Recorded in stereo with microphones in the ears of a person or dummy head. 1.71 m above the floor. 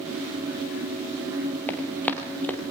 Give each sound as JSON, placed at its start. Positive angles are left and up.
{"t": 1.7, "sound": "running footsteps", "side_deg": 5, "distance_m": 1.9}